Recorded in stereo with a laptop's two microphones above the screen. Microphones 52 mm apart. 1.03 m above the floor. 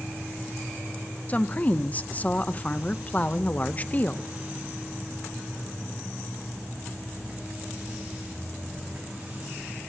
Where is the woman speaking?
30° left (ahead or behind), 0.5 m.